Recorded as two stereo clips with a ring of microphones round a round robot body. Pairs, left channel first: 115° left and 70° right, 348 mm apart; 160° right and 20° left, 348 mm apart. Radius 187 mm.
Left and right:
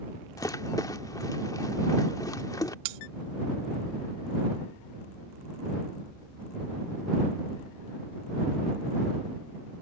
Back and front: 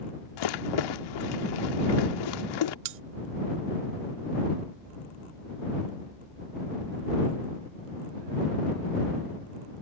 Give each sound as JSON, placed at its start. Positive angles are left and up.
{"t": 0.4, "sound": "a rattle", "azimuth_deg": -165}
{"t": 2.9, "sound": "cutlery clinking", "azimuth_deg": -35}